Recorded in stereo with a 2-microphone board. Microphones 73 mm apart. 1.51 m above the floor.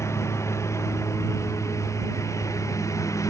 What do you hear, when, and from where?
0.0 s a lawn mower: 40° left (ahead or behind); by 3.3 s 45° left (ahead or behind)